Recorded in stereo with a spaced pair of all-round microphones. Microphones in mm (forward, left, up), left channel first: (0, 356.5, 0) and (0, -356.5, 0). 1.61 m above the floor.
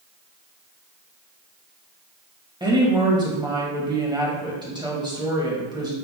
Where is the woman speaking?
5° right (ahead or behind), 2 m.